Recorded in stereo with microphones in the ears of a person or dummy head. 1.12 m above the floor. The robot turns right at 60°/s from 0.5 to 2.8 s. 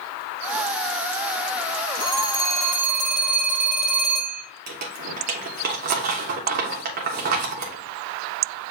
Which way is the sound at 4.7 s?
50° right (ahead or behind).